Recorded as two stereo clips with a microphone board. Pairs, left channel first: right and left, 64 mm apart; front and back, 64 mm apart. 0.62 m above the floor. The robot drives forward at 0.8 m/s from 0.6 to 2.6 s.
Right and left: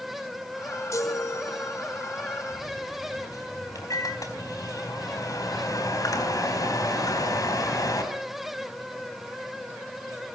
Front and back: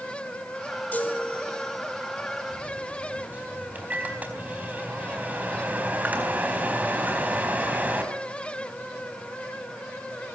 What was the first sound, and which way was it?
A chime, 65° right.